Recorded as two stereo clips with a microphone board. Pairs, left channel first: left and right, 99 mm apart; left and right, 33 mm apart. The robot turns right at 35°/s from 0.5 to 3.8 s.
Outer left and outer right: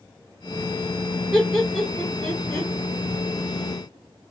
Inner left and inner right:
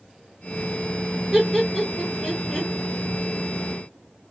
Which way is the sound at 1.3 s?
5° right (ahead or behind).